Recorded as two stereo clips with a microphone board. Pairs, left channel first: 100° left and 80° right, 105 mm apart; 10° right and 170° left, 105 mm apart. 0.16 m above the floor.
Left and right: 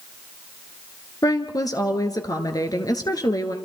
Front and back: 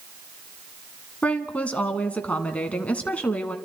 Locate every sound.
1.2 s a woman speaking: 65° left, 1.5 m